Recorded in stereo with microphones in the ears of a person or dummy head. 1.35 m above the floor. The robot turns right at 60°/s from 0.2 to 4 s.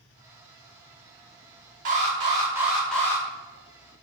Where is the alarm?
60° right, 1.1 m; by 3.2 s 25° left, 1.1 m.